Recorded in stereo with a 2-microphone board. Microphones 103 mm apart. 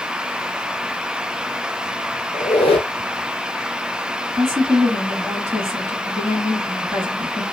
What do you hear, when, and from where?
2.3 s a squeak: 70° left (ahead or behind), 0.6 m
4.3 s a woman speaking: 25° right (ahead or behind), 1.0 m